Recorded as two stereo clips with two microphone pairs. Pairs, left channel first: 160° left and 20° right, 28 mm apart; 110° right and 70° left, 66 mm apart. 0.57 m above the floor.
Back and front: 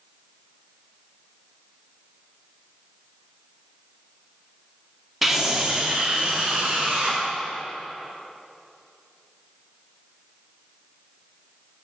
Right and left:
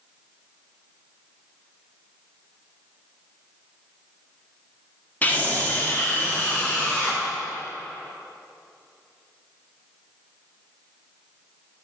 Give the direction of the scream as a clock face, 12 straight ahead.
3 o'clock.